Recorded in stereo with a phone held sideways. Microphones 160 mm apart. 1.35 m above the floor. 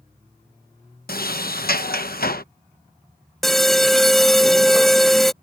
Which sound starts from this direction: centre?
An alarm, at 3.4 s.